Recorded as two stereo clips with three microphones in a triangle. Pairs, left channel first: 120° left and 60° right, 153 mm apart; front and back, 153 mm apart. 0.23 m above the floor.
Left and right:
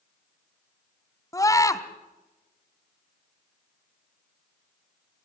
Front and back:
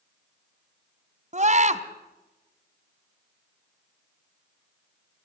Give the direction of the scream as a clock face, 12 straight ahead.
6 o'clock.